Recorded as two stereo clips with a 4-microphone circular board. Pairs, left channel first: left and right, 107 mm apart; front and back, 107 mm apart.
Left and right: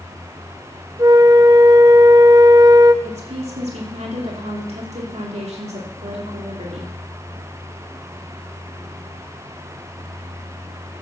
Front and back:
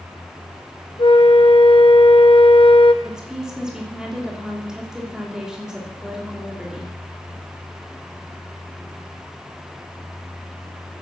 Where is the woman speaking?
95° right, 3 m.